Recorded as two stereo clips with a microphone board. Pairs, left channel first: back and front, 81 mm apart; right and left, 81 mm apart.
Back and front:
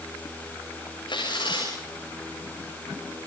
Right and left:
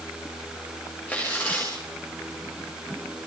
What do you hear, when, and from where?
1.1 s tearing paper: 160° right, 9.5 m